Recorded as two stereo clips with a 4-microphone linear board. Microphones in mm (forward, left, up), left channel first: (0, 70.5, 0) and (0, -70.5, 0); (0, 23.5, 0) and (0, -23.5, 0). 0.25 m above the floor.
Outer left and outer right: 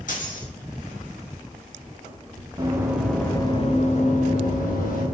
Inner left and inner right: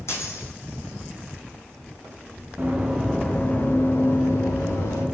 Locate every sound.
0.1 s a dropped coin: 65° left (ahead or behind), 1.7 m
2.6 s running footsteps: 25° right (ahead or behind), 1.2 m; by 5.0 s 80° left, 2.5 m